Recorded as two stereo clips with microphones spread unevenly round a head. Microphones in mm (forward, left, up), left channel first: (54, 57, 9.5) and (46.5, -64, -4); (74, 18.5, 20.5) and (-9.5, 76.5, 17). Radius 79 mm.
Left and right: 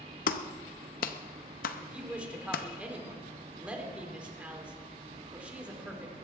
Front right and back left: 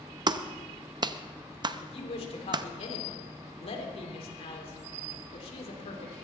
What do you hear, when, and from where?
0.3 s a clap: 95° left, 0.7 m
1.8 s a woman speaking: 15° right, 3.5 m